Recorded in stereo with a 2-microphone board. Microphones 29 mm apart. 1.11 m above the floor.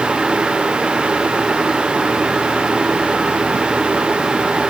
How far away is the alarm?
No alarm in this recording.